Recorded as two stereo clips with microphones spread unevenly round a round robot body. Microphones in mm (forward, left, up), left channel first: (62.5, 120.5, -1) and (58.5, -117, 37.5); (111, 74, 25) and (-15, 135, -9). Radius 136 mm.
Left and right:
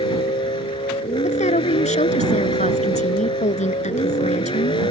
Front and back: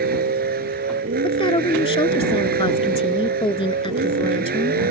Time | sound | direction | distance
0.0 | a vehicle | 165° left | ?
1.2 | a woman speaking | 25° left | ?